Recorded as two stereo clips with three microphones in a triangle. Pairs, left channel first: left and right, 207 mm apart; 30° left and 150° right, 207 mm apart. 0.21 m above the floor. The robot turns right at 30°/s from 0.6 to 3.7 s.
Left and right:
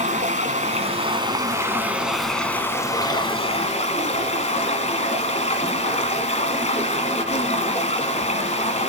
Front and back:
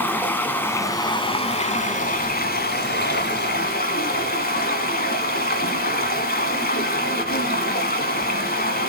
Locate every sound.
0.0 s running water: 50° right, 1.3 m; by 8.9 s 45° left, 1.3 m